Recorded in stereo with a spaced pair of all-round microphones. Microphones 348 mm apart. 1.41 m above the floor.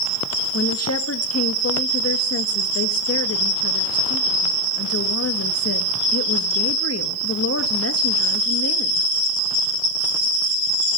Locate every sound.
0.5 s a woman speaking: 45° left (ahead or behind), 1.8 m